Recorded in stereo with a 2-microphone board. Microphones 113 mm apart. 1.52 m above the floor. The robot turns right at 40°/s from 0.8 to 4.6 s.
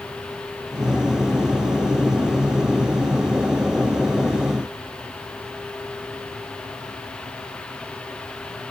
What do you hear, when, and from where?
Only background noise.